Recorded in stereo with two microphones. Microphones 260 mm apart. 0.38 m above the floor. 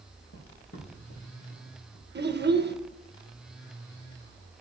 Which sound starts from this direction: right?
A child speaking, at 2.1 s.